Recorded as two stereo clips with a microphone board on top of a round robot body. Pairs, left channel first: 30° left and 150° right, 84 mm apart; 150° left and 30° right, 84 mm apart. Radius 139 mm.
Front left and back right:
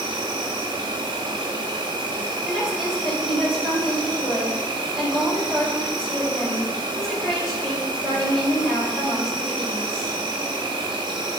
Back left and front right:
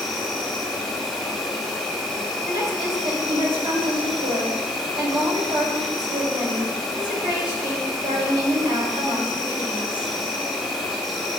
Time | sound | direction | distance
0.0 | an insect | 120° right | 0.8 m
2.5 | a woman speaking | 65° right | 4 m